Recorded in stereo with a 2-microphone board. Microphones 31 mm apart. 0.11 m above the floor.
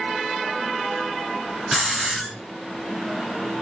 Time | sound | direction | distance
1.7 | a hiss | 5° right (ahead or behind) | 1.2 m